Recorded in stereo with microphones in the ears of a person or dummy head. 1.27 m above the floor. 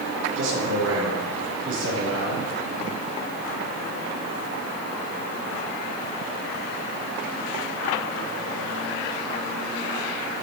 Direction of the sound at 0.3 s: 75° right (ahead or behind).